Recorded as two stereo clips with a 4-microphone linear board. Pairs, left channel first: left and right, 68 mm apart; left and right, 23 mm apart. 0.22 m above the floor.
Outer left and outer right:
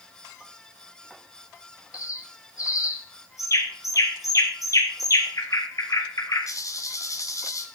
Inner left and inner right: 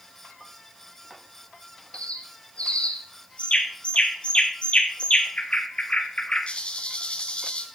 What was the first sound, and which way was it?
A bird, 55° left (ahead or behind).